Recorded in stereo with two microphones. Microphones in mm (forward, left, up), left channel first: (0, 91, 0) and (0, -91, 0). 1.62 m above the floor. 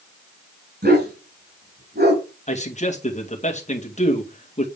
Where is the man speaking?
40° left (ahead or behind), 2 m.